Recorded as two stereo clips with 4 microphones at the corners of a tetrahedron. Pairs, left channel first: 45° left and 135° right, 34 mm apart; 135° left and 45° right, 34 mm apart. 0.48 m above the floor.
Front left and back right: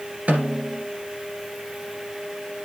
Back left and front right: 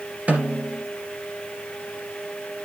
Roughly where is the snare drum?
Right.